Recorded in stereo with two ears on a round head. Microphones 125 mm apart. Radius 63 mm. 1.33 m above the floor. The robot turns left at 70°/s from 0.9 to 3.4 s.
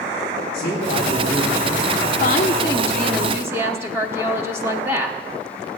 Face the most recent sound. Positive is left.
turn(degrees=-20)